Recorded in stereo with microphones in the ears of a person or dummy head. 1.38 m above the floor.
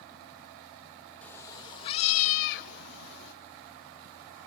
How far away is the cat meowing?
About 0.8 m.